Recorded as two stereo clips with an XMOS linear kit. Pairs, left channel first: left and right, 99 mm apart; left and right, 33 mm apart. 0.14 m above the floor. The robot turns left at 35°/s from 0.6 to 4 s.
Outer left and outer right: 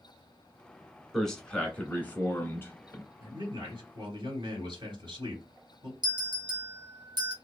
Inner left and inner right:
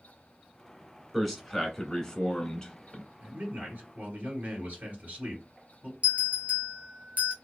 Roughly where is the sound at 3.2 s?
Right.